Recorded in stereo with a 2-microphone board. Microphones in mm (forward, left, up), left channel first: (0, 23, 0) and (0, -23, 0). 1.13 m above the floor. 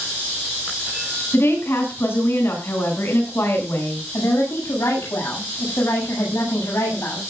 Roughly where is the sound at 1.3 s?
Left.